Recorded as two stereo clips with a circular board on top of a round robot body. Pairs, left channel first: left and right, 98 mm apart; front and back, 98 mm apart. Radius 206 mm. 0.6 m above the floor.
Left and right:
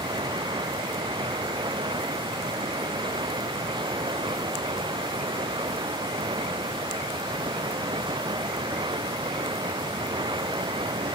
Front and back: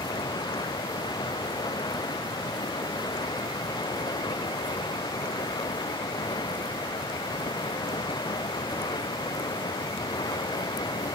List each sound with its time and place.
0.0 s running water: 45° right